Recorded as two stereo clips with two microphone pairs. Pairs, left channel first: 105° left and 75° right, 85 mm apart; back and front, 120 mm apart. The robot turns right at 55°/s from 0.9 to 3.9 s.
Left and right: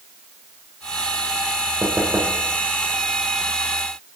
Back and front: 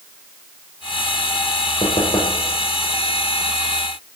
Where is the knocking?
150° right, 3 m; by 2.4 s 120° right, 3 m.